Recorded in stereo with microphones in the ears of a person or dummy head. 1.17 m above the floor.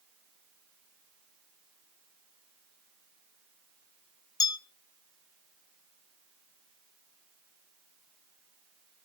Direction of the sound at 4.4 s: 25° left (ahead or behind).